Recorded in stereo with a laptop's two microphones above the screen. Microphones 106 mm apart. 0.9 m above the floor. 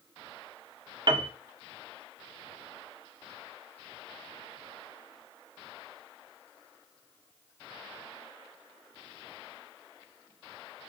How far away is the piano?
About 0.5 m.